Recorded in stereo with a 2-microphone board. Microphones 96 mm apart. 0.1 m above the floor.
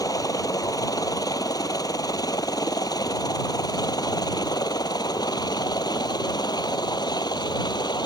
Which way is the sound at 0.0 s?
40° left (ahead or behind).